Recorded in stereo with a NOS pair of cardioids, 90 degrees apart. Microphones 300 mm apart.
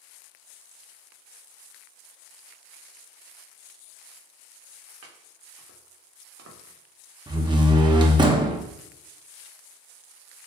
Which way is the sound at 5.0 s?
60° right.